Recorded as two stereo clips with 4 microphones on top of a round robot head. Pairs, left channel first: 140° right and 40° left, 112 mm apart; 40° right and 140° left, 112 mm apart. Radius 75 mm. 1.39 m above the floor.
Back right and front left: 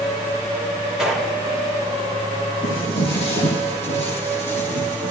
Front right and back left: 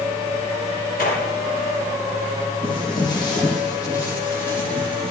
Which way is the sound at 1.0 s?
45° right.